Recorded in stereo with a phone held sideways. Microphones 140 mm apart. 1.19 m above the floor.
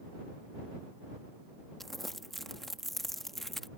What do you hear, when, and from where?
1.8 s crumpling: centre (ahead or behind)